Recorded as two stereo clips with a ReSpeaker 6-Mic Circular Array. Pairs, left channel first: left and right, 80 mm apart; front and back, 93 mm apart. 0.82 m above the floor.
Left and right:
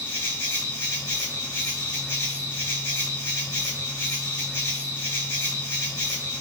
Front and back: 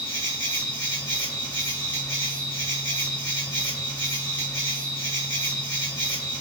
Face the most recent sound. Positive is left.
turn(degrees=30)